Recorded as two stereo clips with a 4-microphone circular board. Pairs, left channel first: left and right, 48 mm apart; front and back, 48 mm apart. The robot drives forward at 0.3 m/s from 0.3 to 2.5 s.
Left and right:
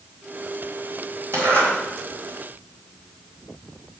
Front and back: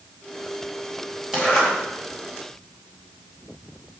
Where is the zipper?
105° right, 3 m; by 1.7 s 110° right, 3 m.